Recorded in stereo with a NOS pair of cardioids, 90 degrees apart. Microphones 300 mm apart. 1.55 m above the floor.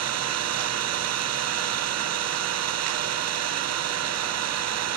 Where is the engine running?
60° right, 0.8 m.